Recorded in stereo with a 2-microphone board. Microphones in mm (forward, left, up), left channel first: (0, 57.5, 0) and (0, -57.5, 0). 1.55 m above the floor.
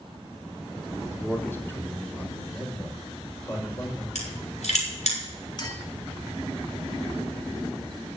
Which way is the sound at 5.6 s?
40° left (ahead or behind).